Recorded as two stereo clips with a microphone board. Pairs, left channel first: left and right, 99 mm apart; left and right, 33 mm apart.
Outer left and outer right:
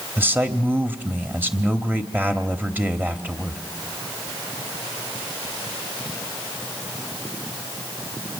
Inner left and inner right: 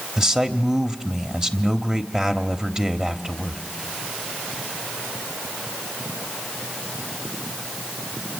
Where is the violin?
I don't hear a violin.